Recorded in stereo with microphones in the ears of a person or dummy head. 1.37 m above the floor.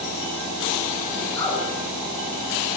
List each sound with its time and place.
1.4 s a woman speaking: 15° left (ahead or behind), 1.9 m